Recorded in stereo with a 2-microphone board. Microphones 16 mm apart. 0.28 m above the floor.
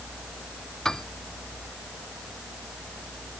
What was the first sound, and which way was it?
A piano, 40° left (ahead or behind).